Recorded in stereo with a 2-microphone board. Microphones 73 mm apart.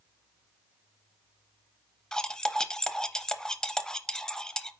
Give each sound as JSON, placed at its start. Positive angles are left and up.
{"t": 2.1, "sound": "cutlery clinking", "side_deg": 10, "distance_m": 0.6}